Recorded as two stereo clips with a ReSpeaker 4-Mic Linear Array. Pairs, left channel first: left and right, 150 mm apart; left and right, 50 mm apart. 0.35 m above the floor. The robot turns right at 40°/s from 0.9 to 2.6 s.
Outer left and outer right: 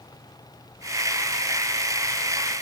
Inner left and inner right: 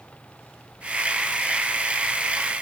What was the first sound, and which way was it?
Only background noise.